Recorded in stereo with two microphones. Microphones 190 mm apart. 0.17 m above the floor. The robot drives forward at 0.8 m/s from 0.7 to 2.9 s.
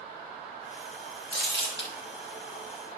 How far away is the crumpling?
About 4.5 m.